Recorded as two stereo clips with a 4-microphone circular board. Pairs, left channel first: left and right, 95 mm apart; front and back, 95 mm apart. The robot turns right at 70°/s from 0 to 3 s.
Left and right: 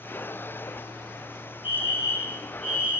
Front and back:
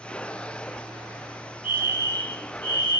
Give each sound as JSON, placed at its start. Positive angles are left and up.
{"t": 1.6, "sound": "a fire alarm", "azimuth_deg": 105, "distance_m": 6.5}